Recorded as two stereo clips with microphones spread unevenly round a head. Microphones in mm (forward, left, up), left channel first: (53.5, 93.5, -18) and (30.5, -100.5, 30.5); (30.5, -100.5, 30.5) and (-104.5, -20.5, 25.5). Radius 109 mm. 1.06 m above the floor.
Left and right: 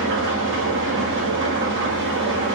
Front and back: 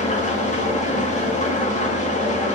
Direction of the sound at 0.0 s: 70° right.